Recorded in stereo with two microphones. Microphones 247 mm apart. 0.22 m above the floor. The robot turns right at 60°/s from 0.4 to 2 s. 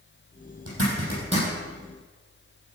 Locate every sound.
0.7 s a zipper: 60° right (ahead or behind), 6 m; by 1.5 s 15° right (ahead or behind), 6 m